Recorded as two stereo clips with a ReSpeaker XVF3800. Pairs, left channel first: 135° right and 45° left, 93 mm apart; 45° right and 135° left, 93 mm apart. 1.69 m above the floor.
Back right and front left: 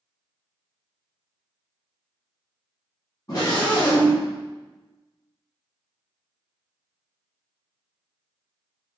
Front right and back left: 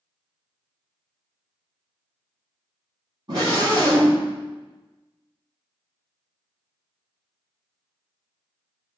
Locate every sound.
3.3 s a scream: 175° left, 4 m